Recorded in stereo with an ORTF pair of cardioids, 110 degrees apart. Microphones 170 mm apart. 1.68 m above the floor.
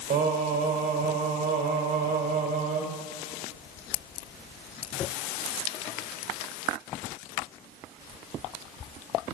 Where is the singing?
55° right, 2 m.